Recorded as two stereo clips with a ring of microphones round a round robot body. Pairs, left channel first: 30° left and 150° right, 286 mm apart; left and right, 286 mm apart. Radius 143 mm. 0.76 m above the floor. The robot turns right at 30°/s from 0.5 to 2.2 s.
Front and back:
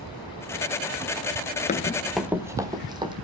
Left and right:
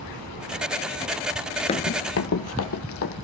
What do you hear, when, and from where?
1.7 s running footsteps: 50° left, 0.7 m; by 3.1 s 135° left, 2.5 m